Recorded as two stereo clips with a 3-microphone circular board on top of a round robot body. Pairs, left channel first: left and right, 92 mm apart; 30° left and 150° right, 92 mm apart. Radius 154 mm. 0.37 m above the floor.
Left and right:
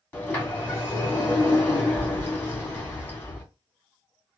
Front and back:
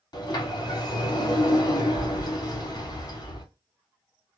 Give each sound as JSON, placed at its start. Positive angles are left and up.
{"t": 0.1, "sound": "a sliding door", "azimuth_deg": 25, "distance_m": 1.9}